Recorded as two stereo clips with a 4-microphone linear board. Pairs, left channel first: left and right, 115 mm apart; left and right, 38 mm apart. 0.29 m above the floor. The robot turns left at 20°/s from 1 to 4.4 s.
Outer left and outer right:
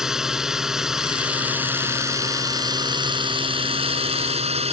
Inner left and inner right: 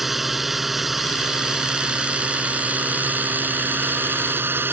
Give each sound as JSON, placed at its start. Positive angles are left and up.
{"t": 0.0, "sound": "a drone", "azimuth_deg": -5}